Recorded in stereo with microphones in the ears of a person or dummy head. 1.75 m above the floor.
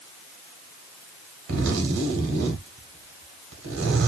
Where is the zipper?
65° right (ahead or behind), 0.9 m.